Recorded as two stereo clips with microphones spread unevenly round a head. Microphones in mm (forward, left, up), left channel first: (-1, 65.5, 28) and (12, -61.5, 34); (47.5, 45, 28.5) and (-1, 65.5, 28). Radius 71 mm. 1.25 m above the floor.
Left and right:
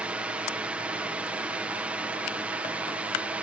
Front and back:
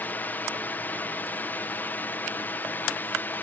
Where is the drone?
10° right.